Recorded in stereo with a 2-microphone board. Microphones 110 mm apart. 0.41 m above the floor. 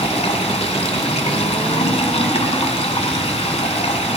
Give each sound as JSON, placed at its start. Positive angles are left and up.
{"t": 0.0, "sound": "running water", "side_deg": 70, "distance_m": 1.3}